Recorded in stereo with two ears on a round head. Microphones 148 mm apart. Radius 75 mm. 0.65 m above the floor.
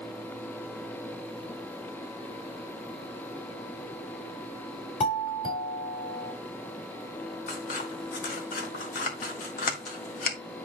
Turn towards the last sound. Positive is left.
turn(degrees=55)  # may be behind; listen again after turning